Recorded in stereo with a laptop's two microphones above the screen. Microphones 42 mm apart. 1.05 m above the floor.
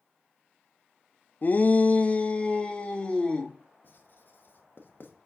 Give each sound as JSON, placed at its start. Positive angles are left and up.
{"t": 1.4, "sound": "a shout", "side_deg": 45, "distance_m": 0.6}
{"t": 3.8, "sound": "writing", "side_deg": 55, "distance_m": 1.1}